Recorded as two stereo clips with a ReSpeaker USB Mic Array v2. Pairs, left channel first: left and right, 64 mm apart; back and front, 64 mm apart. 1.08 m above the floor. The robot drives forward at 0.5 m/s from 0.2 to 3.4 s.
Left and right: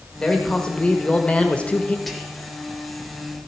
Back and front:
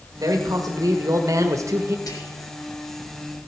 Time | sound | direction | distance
0.2 | a man speaking | 10° left | 1.7 m
2.1 | whispering | 175° left | 1.9 m